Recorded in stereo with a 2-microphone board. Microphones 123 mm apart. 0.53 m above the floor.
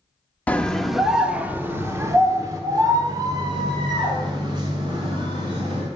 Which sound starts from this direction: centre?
A scream, at 0.5 s.